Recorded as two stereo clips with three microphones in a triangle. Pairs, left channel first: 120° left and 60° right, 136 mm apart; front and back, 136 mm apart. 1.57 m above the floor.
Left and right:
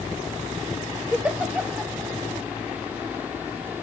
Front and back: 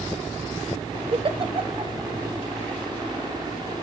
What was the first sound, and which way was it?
A giggle, 140° right.